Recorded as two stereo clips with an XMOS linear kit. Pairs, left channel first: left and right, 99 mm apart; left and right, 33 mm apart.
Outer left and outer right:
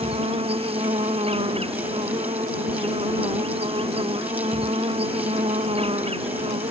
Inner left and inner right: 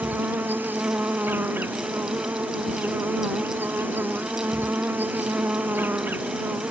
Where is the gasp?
I don't hear a gasp.